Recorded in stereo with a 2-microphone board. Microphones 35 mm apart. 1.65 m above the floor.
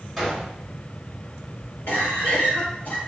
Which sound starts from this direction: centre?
A gunshot, at 0.2 s.